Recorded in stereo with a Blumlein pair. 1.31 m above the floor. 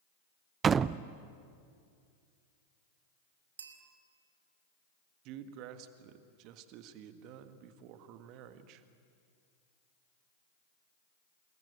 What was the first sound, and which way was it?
A door slam, 20° right.